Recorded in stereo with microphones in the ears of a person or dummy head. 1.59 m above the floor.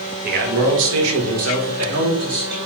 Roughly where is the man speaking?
Right.